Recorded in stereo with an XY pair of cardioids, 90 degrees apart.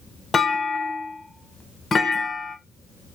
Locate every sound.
0.3 s a clunk: 35° left, 0.9 m